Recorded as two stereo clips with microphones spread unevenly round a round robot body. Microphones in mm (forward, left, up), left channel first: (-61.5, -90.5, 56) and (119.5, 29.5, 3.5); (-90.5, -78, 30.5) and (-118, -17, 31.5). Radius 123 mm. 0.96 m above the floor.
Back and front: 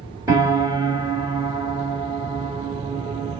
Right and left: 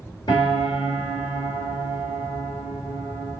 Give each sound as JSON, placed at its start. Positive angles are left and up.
{"t": 0.3, "sound": "a piano", "azimuth_deg": -45, "distance_m": 1.4}